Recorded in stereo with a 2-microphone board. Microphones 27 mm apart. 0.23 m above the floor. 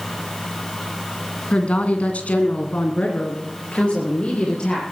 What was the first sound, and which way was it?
A woman speaking, 50° left (ahead or behind).